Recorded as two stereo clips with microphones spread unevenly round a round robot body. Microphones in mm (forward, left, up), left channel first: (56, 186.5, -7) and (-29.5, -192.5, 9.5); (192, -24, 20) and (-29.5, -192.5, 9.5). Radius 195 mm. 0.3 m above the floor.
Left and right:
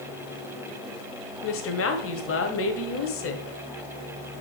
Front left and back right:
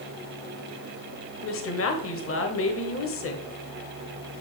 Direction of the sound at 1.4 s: 40° left.